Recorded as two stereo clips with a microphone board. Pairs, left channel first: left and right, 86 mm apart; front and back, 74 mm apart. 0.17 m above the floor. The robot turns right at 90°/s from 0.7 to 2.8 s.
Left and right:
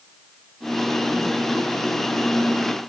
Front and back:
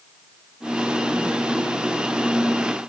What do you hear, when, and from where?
Only background noise.